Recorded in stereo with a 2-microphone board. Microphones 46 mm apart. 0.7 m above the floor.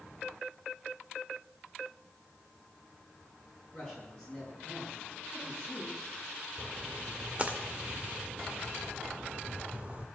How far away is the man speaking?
About 8 m.